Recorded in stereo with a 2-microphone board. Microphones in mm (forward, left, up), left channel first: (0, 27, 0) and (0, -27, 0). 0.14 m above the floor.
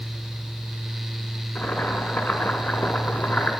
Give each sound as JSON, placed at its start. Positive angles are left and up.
{"t": 1.6, "sound": "boiling", "side_deg": 30, "distance_m": 1.2}